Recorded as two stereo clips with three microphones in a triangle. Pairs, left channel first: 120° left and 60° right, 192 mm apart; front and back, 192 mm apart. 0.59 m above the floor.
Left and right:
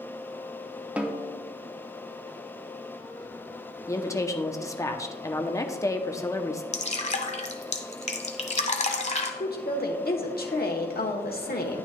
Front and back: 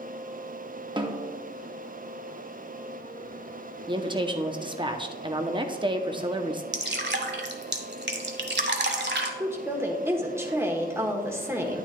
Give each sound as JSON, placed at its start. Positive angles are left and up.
{"t": 1.0, "sound": "a snare drum", "azimuth_deg": -135, "distance_m": 0.8}
{"t": 3.9, "sound": "a woman speaking", "azimuth_deg": 170, "distance_m": 0.7}
{"t": 6.7, "sound": "dripping", "azimuth_deg": 170, "distance_m": 0.9}
{"t": 9.4, "sound": "a woman speaking", "azimuth_deg": 105, "distance_m": 1.2}